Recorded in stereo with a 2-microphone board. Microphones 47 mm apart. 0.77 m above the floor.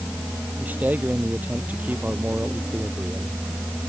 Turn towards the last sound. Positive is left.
turn(degrees=-35)  # may be behind; listen again after turning